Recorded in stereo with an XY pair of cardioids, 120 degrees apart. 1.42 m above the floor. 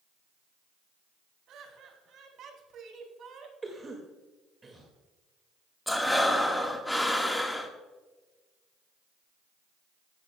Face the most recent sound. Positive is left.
turn(degrees=5)